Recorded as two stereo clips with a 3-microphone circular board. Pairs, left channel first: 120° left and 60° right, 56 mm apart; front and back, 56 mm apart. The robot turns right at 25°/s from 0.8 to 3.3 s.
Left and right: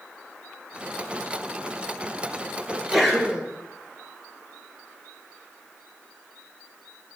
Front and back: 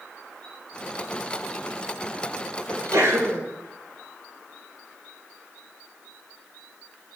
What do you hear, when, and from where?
2.7 s a sneeze: 160° right, 5 m; by 3.4 s 140° right, 5 m